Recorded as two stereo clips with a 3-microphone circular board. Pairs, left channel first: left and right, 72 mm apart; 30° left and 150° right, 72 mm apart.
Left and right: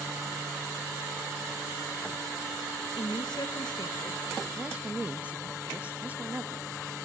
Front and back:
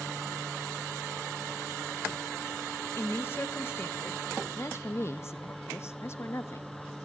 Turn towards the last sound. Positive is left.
turn(degrees=-20)